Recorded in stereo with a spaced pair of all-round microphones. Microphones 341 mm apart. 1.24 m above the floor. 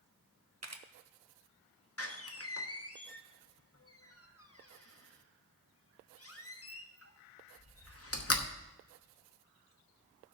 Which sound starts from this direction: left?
A door slam, at 2.0 s.